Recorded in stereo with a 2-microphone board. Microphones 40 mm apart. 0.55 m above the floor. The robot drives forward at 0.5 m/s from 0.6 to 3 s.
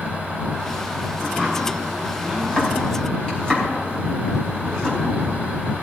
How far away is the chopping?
About 4 m.